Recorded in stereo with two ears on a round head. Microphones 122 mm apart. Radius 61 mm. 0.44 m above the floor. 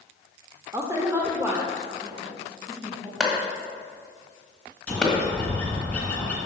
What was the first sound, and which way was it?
A woman speaking, 20° right (ahead or behind).